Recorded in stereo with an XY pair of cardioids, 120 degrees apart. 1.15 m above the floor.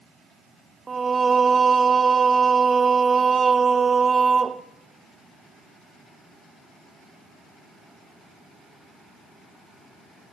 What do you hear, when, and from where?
0.9 s singing: 30° right, 0.7 m